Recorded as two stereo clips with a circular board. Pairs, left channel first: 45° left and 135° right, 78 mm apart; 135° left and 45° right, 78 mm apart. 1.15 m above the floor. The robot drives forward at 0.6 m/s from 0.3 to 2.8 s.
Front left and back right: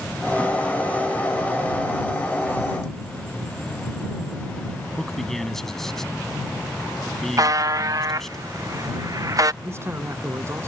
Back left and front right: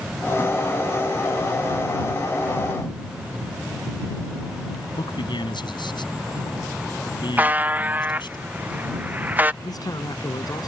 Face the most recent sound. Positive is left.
turn(degrees=170)